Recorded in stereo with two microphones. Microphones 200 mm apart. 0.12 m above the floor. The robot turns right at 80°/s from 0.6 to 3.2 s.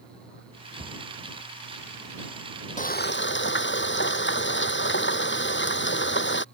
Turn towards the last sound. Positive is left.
turn(degrees=75)